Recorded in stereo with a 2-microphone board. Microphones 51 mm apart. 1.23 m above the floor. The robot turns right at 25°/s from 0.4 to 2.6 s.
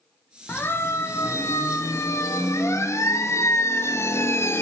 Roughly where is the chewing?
No chewing in this recording.